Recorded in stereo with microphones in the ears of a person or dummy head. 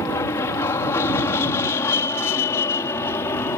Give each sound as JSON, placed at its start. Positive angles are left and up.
{"t": 0.0, "sound": "an aircraft", "side_deg": 20}